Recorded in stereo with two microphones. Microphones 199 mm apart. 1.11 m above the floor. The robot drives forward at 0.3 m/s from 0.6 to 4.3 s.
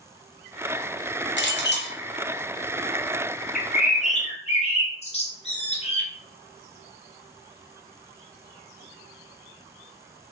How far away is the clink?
About 0.7 m.